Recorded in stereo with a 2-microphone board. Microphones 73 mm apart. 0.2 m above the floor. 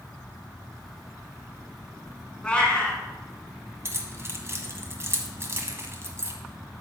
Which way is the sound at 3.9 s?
35° right (ahead or behind).